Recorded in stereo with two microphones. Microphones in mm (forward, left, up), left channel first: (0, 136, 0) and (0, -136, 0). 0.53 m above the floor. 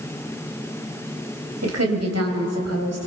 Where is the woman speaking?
70° right (ahead or behind), 3.5 m.